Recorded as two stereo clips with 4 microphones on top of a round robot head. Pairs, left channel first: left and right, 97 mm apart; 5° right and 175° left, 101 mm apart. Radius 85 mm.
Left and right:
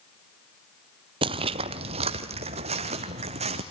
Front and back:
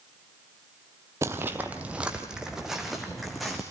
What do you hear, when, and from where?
1.2 s footsteps: 115° right, 0.7 m; by 3.6 s 95° right, 1.8 m